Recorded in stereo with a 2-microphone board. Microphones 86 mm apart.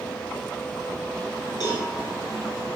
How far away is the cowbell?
About 1.4 m.